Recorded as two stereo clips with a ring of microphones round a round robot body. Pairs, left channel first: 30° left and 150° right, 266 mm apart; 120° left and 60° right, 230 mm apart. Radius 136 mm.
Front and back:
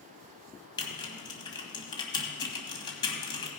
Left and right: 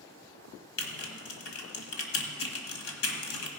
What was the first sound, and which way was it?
Typing on a keyboard, 105° left.